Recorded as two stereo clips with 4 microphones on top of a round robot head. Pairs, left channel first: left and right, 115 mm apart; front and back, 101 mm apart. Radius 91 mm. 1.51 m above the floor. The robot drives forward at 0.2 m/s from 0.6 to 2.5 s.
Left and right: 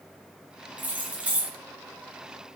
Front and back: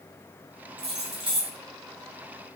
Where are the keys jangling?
160° right, 0.6 m; by 1.6 s 165° right, 0.7 m.